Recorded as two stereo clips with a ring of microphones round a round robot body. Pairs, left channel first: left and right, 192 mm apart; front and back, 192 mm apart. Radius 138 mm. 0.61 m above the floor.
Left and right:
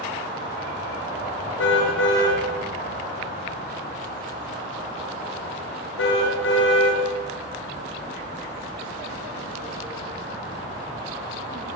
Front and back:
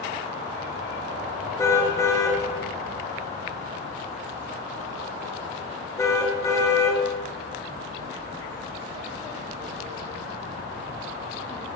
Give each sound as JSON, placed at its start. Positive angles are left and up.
{"t": 1.6, "sound": "a car horn", "azimuth_deg": 75, "distance_m": 5.5}